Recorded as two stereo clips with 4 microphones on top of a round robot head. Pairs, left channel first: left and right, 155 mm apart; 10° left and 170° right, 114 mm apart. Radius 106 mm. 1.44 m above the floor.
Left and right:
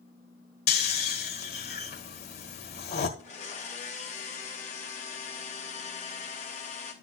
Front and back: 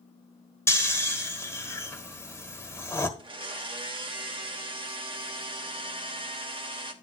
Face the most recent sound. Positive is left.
turn(degrees=145)